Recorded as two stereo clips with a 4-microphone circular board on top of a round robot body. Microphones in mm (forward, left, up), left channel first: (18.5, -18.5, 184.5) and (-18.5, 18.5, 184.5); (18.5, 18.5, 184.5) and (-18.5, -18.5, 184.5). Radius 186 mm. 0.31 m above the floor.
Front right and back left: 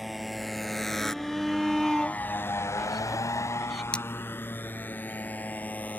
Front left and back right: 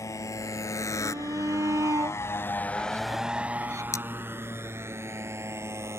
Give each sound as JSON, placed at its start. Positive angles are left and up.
{"t": 0.0, "sound": "a motorcycle", "azimuth_deg": 45}
{"t": 1.0, "sound": "a shout", "azimuth_deg": -135}
{"t": 3.9, "sound": "cutlery clinking", "azimuth_deg": 25}